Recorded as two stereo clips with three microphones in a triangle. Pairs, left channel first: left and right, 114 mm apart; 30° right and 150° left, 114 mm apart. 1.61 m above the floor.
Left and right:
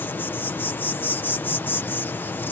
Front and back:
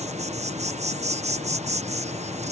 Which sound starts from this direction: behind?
An insect, at 0.0 s.